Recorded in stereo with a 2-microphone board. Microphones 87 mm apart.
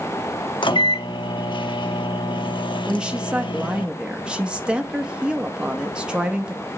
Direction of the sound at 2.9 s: 10° right (ahead or behind).